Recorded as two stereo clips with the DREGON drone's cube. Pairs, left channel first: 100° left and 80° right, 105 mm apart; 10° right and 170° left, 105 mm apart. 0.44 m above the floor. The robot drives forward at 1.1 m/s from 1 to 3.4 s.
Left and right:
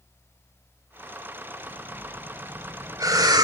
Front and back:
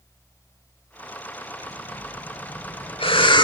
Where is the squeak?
I don't hear a squeak.